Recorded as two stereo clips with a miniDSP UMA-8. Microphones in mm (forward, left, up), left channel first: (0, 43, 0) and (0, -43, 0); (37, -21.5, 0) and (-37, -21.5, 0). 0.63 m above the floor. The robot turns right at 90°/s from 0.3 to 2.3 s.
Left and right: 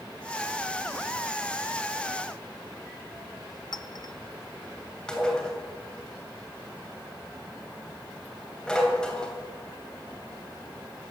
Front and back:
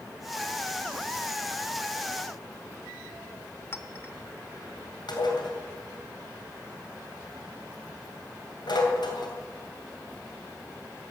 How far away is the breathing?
No breathing in this recording.